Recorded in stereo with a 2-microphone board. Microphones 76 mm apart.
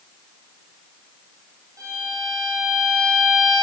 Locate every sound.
1.8 s a violin: 55° right (ahead or behind), 3.5 m